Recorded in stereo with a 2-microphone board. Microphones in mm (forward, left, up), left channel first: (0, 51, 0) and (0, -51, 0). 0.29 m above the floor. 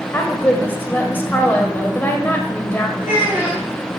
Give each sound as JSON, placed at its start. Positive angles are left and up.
{"t": 0.1, "sound": "a woman speaking", "side_deg": 20, "distance_m": 0.9}
{"t": 3.0, "sound": "a child speaking", "side_deg": -25, "distance_m": 2.5}